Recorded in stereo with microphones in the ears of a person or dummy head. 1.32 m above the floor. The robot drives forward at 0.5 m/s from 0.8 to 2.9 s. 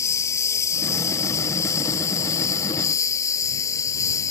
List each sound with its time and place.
0.0 s a lawn mower: 15° left (ahead or behind); by 4.3 s 20° left (ahead or behind)